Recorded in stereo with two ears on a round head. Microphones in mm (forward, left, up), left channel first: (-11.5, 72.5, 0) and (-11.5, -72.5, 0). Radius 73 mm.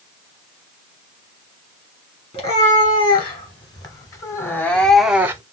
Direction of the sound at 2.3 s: 35° left (ahead or behind).